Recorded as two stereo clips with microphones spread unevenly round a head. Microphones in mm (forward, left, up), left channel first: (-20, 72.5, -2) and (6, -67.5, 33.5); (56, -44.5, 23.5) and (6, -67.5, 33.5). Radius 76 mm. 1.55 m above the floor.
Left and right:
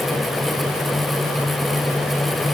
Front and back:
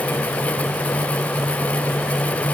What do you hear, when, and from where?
Only background noise.